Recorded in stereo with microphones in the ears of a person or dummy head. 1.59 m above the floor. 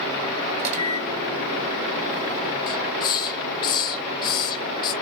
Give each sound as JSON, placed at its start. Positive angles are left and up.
{"t": 0.6, "sound": "a microwave", "side_deg": -35, "distance_m": 2.0}
{"t": 2.7, "sound": "a hiss", "side_deg": 25, "distance_m": 0.6}